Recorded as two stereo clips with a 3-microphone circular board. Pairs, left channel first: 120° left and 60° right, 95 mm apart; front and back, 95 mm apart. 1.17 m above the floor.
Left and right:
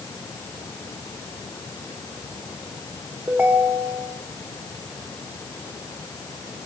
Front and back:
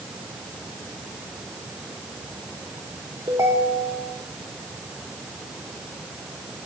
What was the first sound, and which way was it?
A ringtone, 135° right.